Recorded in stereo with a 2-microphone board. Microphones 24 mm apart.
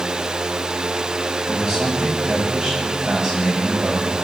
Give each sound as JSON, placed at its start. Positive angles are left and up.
{"t": 1.5, "sound": "a man speaking", "side_deg": -40, "distance_m": 9.0}